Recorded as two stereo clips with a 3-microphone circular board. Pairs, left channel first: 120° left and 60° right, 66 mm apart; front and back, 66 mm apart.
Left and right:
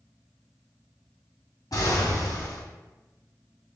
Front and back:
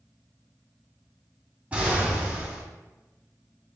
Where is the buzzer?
No buzzer in this recording.